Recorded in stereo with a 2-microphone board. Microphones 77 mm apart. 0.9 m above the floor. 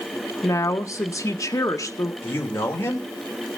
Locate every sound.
0.4 s a woman speaking: 40° left (ahead or behind), 1.0 m
2.2 s a man speaking: 30° left (ahead or behind), 3 m